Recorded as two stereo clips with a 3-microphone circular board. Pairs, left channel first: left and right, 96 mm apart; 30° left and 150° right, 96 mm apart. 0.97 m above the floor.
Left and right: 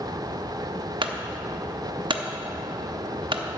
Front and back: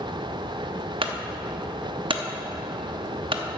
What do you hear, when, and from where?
1.0 s a clunk: 125° right, 0.8 m